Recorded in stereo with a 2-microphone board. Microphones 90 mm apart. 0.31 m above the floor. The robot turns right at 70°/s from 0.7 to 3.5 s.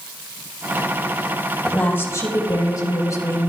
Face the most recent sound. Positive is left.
turn(degrees=145)